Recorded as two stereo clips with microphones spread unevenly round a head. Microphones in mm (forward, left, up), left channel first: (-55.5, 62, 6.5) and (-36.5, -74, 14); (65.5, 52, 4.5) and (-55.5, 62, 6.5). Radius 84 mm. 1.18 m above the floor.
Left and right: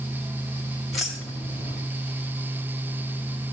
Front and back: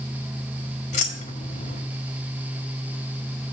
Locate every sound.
0.9 s keys jangling: 5° left, 1.5 m